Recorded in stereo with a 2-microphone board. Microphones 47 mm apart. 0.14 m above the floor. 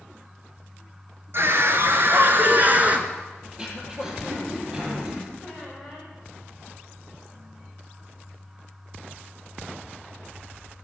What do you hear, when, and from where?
1.3 s a scream: 55° right (ahead or behind), 2 m; by 3.1 s 30° right (ahead or behind), 1.6 m
3.5 s throat clearing: 15° right (ahead or behind), 3 m
5.4 s a squeak: 10° right (ahead or behind), 5 m